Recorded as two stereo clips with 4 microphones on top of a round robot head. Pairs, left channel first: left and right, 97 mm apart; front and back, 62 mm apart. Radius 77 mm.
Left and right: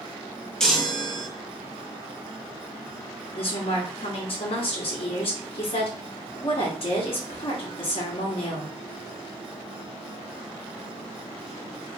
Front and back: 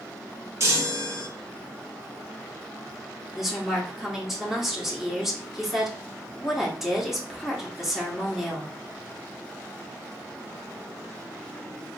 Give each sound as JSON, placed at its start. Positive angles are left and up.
{"t": 0.6, "sound": "a chime", "azimuth_deg": 175, "distance_m": 1.2}
{"t": 3.3, "sound": "a woman speaking", "azimuth_deg": 95, "distance_m": 1.4}